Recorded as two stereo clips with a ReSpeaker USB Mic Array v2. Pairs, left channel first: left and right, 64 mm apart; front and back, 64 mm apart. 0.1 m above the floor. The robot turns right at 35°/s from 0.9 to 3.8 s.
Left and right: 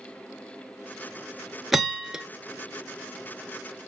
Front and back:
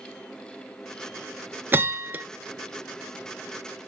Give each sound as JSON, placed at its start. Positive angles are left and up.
{"t": 1.7, "sound": "a bell", "azimuth_deg": -175, "distance_m": 0.6}